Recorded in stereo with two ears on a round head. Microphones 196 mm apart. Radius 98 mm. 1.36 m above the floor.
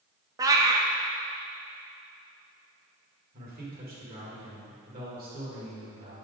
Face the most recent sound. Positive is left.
turn(degrees=-45)  # may be behind; listen again after turning